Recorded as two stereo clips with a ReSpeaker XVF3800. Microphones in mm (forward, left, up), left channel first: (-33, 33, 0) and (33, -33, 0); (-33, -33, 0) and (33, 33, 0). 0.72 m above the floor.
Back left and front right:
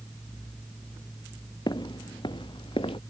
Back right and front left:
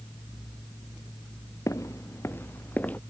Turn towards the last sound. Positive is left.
turn(degrees=155)